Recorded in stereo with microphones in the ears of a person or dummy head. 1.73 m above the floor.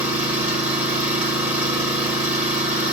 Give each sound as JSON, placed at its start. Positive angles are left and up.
{"t": 0.0, "sound": "an engine running", "side_deg": -10, "distance_m": 1.7}